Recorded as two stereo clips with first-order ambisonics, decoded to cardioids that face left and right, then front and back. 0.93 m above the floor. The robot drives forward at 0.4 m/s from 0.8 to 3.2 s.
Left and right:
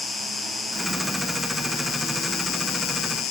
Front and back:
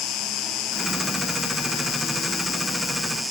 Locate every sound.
0.0 s an insect: 25° left, 1.1 m; by 3.3 s 95° left, 0.5 m